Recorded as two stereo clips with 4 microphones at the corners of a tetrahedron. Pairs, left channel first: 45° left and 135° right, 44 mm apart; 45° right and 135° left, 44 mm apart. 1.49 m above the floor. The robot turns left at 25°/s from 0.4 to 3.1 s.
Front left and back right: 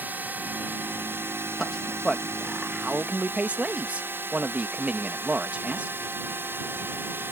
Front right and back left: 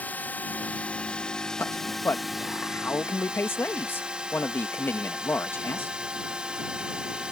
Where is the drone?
95° right; by 7.3 s 160° right.